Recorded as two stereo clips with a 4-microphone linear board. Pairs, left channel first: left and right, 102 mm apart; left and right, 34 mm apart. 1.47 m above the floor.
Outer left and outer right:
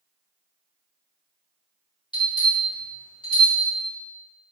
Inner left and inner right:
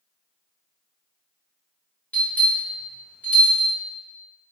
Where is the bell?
50° left (ahead or behind), 1.6 m.